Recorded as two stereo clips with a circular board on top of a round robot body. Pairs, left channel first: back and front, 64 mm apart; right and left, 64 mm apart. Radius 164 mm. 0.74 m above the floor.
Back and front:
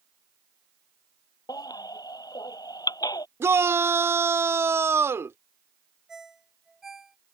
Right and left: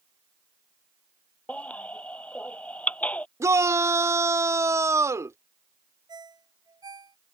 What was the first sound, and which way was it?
A baby crying, 160° right.